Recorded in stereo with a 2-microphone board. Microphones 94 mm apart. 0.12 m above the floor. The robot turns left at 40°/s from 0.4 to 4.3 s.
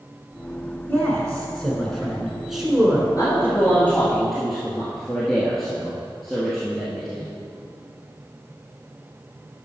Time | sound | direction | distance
0.9 | a man speaking | 15° left (ahead or behind) | 1.5 m
3.2 | a man speaking | 45° left | 1.9 m